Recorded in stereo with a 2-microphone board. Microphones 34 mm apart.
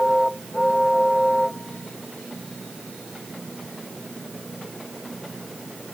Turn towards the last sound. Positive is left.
No sound to turn to.